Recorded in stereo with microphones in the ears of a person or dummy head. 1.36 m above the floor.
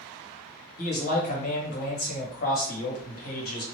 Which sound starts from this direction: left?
A man speaking, at 0.8 s.